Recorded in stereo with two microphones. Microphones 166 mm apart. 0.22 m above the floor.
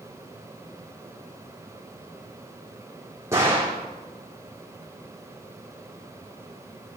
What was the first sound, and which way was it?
A gunshot, 15° right (ahead or behind).